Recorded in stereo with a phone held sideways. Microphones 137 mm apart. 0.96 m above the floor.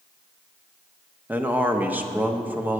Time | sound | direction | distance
1.3 | a man speaking | 15° right (ahead or behind) | 0.7 m